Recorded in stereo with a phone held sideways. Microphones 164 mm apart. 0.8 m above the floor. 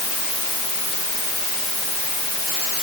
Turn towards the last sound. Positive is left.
No sound to turn to.